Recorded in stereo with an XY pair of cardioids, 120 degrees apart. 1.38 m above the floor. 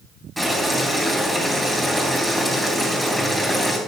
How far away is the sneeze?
No sneeze in this recording.